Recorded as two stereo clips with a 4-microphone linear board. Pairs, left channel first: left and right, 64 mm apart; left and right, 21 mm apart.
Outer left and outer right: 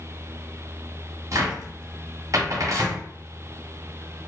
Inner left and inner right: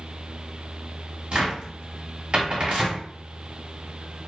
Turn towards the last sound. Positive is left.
turn(degrees=-55)  # may be behind; listen again after turning